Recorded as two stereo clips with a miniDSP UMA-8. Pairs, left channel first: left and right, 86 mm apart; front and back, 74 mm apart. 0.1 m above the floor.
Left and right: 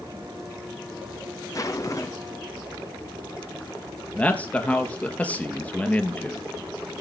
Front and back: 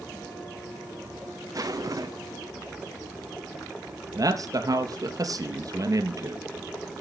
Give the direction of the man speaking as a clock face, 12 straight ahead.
7 o'clock.